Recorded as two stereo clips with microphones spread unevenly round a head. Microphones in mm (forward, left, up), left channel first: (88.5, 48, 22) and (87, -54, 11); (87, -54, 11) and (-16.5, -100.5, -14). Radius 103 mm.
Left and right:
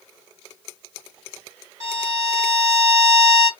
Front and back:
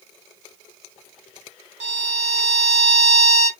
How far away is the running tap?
I don't hear a running tap.